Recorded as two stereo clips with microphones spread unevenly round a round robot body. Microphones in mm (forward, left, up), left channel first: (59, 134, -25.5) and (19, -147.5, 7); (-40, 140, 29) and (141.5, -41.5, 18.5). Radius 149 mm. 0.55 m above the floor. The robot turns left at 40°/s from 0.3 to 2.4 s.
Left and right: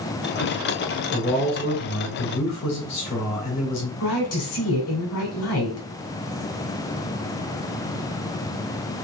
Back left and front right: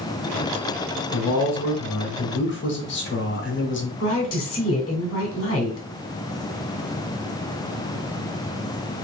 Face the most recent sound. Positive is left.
turn(degrees=110)